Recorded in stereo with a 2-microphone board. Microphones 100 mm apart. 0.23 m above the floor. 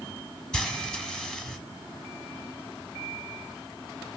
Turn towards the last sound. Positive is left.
turn(degrees=5)  # may be behind; listen again after turning